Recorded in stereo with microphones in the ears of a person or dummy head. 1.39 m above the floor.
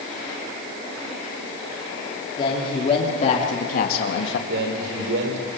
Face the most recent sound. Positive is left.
turn(degrees=-75)  # may be behind; listen again after turning